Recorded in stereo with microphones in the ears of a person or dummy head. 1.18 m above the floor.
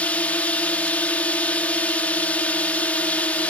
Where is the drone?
10° left (ahead or behind).